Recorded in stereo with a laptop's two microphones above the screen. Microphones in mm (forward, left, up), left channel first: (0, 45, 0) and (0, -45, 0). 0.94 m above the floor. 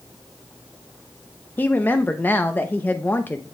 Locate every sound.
1.6 s a woman speaking: 20° left (ahead or behind), 0.6 m